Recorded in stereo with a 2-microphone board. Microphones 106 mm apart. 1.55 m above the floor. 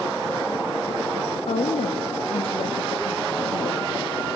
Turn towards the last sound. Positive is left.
turn(degrees=65)  # may be behind; listen again after turning